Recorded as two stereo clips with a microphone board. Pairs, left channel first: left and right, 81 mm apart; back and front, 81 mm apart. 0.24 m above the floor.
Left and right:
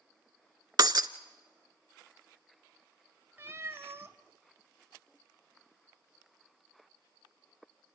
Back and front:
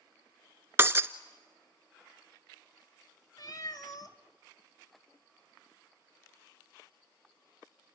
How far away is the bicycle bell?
No bicycle bell in this recording.